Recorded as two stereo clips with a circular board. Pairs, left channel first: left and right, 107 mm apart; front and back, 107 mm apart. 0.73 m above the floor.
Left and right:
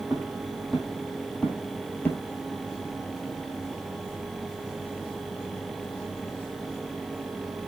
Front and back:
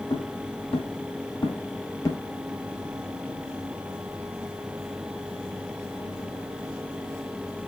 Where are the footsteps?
Straight ahead, 1.7 m; by 2.2 s 35° left, 0.8 m.